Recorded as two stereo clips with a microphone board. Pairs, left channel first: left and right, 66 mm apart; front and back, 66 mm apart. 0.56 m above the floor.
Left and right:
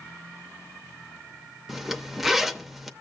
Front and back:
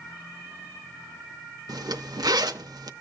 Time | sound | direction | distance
1.7 | a zipper | 175° right | 0.6 m